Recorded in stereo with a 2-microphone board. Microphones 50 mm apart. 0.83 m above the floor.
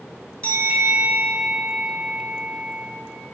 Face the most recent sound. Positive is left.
turn(degrees=25)  # may be behind; listen again after turning